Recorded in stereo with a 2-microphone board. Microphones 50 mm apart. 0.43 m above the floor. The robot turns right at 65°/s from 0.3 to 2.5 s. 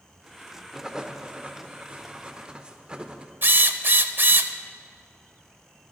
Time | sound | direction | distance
0.7 | writing | 10° right (ahead or behind) | 0.8 m
3.4 | a drill | 50° right (ahead or behind) | 0.6 m